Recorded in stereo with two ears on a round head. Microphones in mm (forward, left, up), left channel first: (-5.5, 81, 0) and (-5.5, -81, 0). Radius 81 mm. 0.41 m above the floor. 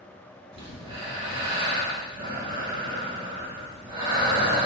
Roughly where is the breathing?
Right.